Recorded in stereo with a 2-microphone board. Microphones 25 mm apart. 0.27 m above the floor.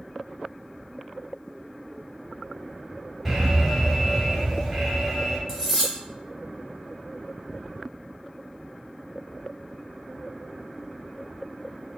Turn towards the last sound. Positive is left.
turn(degrees=10)  # may be behind; listen again after turning